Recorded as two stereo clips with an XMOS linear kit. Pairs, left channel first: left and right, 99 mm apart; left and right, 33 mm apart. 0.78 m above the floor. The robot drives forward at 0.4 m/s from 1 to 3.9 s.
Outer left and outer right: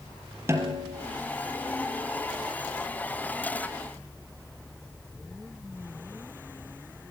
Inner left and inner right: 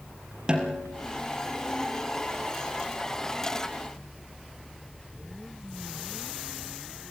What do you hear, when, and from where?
0.5 s a snare drum: 25° right (ahead or behind), 4 m